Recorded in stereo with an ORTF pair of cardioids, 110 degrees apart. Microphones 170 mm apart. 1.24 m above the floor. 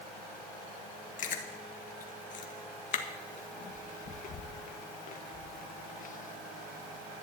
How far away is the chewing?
About 1.5 m.